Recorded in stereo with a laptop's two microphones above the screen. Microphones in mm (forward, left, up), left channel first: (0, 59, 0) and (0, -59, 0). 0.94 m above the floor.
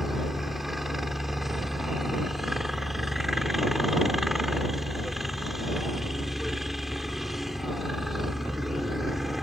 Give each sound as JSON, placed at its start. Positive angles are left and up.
{"t": 0.0, "sound": "a helicopter", "side_deg": 0}